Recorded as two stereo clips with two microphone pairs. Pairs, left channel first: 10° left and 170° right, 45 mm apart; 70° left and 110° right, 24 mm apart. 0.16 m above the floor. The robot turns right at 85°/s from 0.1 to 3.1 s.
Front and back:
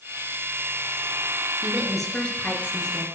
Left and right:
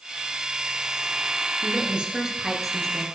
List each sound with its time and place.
1.6 s a woman speaking: 105° right, 3 m; by 3.0 s 15° left, 3 m